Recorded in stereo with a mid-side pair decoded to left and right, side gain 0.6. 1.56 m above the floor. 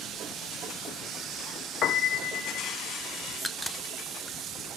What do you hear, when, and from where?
1.8 s a piano: 50° left, 0.6 m
3.3 s a crack: straight ahead, 0.7 m